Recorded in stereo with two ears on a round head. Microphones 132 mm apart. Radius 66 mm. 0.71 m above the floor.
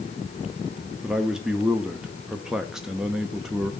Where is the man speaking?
5° right (ahead or behind), 0.7 m.